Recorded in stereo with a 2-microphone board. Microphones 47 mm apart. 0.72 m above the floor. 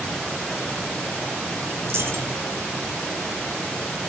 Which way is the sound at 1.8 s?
55° right (ahead or behind).